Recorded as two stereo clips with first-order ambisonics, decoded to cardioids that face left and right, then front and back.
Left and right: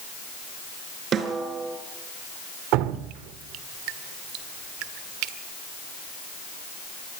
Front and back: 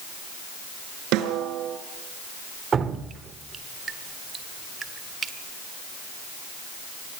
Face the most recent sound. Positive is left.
turn(degrees=-115)